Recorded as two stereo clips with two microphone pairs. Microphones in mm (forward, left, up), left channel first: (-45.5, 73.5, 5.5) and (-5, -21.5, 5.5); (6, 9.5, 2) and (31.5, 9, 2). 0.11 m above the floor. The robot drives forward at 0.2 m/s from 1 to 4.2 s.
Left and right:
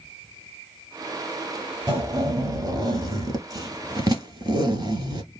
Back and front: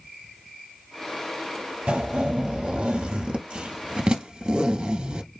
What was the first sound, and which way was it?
A zipper, 20° right.